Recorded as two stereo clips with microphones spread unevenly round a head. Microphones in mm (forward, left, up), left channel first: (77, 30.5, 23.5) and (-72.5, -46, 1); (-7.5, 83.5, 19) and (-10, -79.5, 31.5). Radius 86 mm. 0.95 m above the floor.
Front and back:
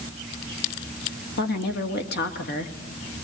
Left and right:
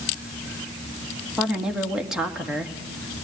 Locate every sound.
1.4 s a woman speaking: 5° right, 2.5 m